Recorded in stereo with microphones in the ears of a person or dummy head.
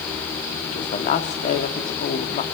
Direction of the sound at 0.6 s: 40° left (ahead or behind).